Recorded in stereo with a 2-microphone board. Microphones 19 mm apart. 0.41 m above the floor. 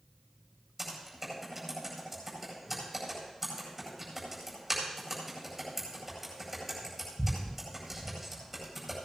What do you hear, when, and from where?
0.8 s typing on a keyboard: 10° right (ahead or behind), 9 m